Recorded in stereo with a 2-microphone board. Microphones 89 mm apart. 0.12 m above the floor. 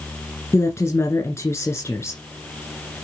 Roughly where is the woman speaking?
Left.